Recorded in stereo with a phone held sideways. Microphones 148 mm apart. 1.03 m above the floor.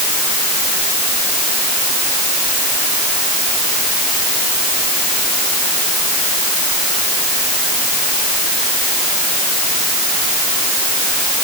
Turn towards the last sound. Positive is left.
No sound to turn to.